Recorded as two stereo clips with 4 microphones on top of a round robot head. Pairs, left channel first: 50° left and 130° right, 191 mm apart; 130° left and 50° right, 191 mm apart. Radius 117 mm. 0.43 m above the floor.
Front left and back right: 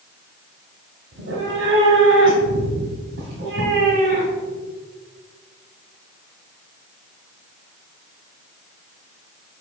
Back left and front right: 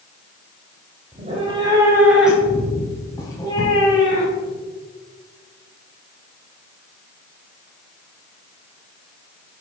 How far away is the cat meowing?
About 1.3 m.